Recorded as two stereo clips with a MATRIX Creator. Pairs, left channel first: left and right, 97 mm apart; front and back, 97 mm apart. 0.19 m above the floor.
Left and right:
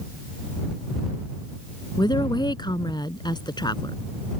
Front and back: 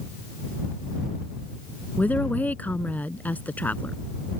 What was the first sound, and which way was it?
A woman speaking, 70° left.